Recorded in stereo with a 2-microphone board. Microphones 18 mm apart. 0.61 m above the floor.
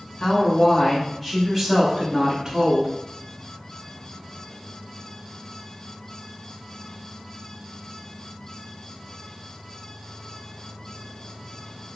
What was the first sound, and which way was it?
A woman speaking, 35° left (ahead or behind).